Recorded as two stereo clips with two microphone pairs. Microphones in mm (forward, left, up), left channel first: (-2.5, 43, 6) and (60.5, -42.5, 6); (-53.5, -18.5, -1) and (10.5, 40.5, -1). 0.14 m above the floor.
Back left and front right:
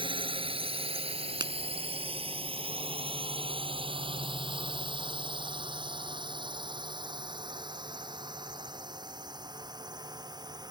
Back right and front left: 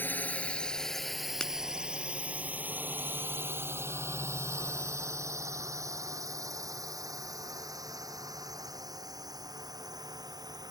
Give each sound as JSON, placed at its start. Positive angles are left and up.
{"t": 0.0, "sound": "a drone", "azimuth_deg": -75}
{"t": 1.4, "sound": "a finger snap", "azimuth_deg": -60}